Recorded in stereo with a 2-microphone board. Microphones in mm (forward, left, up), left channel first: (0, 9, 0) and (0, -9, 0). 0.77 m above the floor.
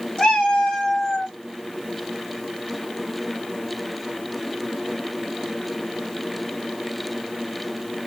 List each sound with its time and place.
0.2 s a cat meowing: 80° left, 2 m; by 1.3 s 65° left (ahead or behind), 1.5 m